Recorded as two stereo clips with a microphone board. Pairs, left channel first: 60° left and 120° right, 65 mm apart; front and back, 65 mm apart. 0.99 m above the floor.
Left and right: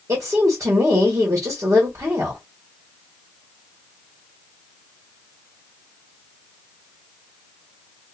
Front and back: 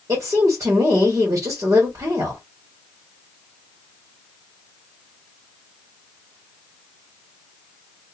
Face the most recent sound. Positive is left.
turn(degrees=-150)